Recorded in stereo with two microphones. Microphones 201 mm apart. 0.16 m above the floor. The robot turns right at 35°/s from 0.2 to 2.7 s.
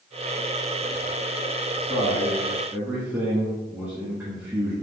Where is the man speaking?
10° left (ahead or behind), 1.3 m; by 4.7 s 10° right (ahead or behind), 1.3 m.